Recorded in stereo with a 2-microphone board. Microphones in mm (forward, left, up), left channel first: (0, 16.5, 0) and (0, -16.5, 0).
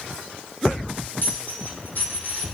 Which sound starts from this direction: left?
A dropped coin, at 1.2 s.